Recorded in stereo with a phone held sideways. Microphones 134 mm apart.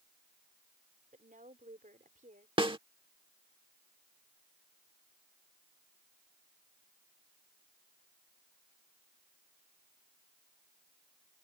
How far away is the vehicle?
No vehicle in this recording.